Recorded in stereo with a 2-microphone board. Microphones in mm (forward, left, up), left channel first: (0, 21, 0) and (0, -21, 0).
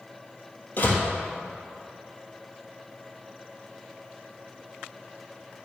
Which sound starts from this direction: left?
A door slam, at 0.8 s.